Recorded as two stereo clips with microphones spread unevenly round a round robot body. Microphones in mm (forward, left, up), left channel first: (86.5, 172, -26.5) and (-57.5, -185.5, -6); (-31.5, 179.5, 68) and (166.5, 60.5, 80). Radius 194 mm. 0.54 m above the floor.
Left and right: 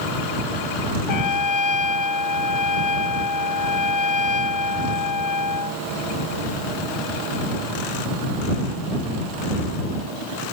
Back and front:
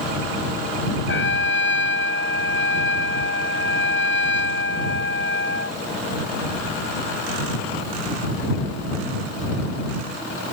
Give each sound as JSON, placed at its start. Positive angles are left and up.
{"t": 1.1, "sound": "a trumpet", "azimuth_deg": 115}